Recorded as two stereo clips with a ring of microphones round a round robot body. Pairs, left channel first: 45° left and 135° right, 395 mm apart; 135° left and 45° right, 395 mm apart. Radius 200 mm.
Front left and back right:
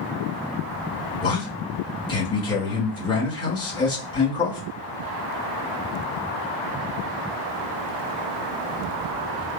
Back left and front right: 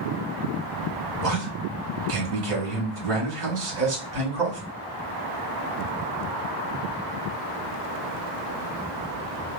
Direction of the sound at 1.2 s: 30° right.